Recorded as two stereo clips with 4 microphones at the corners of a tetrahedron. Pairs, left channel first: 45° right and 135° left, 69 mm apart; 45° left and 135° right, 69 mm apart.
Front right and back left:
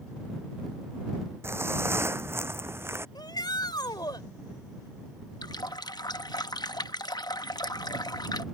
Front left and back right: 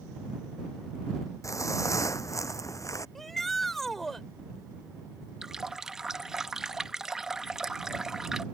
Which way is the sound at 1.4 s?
85° left.